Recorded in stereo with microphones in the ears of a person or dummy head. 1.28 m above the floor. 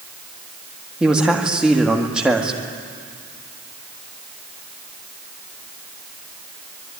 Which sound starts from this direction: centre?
A man speaking, at 1.0 s.